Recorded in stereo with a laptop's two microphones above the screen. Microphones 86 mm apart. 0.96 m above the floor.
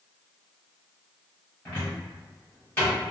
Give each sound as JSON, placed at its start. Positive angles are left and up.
{"t": 1.6, "sound": "a cupboard door", "side_deg": 25, "distance_m": 1.2}